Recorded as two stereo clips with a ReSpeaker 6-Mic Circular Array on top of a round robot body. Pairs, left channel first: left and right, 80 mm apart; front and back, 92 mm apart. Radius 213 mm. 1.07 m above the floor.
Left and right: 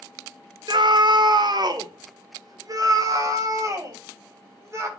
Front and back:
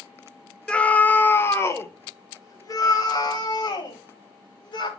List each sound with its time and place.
0.7 s a scream: 80° right, 1.3 m; by 4.9 s 40° right, 3 m